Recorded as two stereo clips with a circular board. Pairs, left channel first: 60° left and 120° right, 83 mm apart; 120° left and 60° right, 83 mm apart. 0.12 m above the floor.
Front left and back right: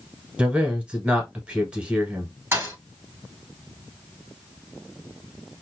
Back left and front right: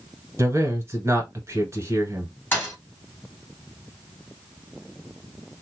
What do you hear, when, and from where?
0.4 s a man speaking: 55° right, 1.2 m
2.5 s a thud: 175° right, 1.1 m